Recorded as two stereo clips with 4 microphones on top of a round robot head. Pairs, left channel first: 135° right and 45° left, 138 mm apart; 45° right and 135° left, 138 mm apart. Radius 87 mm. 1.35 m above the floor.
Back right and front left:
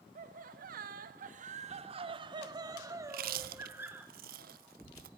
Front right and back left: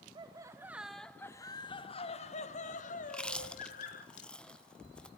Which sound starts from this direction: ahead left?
Chewing, at 3.0 s.